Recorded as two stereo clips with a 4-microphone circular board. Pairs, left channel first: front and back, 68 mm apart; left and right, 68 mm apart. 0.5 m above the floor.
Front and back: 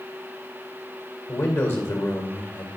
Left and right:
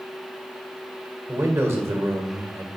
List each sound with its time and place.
1.3 s a man speaking: 45° right, 1.5 m